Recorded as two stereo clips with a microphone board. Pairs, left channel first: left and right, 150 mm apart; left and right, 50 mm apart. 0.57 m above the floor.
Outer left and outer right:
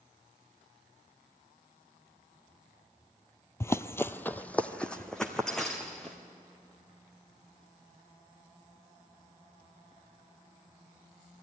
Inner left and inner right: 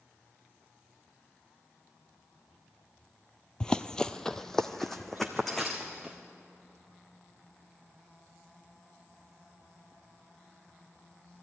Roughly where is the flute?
No flute in this recording.